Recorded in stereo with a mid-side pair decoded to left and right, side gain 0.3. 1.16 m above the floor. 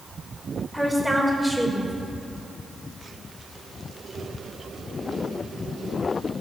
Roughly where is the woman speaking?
Ahead.